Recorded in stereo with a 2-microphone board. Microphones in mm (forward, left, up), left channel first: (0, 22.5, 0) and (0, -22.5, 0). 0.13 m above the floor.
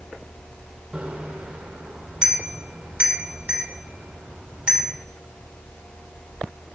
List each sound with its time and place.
0.9 s a bicycle bell: 25° right (ahead or behind), 3 m